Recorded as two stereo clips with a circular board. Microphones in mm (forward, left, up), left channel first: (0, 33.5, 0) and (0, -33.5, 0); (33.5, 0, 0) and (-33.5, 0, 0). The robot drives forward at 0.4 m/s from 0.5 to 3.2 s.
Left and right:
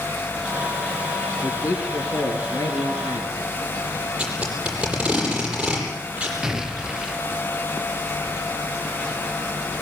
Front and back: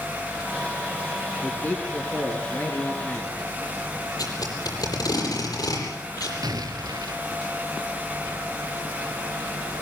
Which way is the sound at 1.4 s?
55° left.